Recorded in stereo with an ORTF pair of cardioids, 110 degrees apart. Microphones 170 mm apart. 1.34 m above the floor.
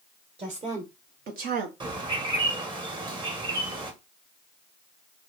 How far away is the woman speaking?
About 1.3 m.